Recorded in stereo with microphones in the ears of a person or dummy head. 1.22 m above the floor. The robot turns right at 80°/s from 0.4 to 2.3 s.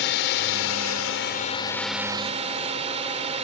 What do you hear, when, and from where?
0.0 s a drone: 60° left; by 3.5 s 150° right